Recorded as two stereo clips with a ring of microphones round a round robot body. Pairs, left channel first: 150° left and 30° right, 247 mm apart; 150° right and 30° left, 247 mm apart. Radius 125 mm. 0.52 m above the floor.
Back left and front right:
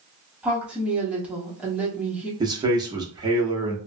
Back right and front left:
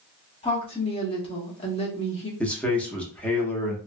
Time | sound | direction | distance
0.4 | a woman speaking | 110° right | 1.0 m
2.4 | a man speaking | 75° right | 0.8 m